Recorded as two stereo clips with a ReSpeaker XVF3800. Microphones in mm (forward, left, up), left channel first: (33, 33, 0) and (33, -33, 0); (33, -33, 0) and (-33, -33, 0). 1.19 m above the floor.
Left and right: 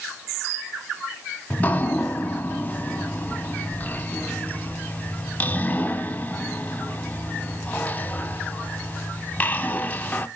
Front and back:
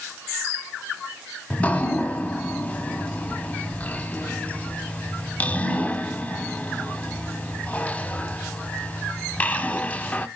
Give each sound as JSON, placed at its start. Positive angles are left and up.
{"t": 1.5, "sound": "dripping", "azimuth_deg": 50, "distance_m": 0.9}